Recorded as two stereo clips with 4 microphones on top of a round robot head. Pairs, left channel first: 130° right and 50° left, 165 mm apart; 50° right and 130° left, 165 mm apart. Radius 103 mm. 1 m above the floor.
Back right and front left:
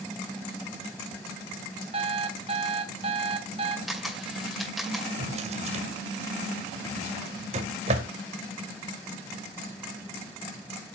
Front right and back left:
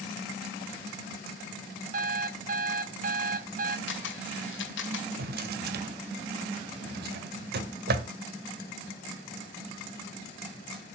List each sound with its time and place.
1.9 s an alarm clock: 100° left, 0.7 m
3.9 s a camera shutter: 40° right, 2 m
5.2 s a drawer: 100° left, 1.4 m